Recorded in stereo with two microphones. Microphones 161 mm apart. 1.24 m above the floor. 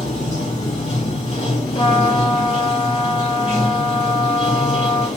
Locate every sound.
0.0 s running water: 45° left (ahead or behind), 1.6 m
1.8 s a trumpet: 30° left (ahead or behind), 0.8 m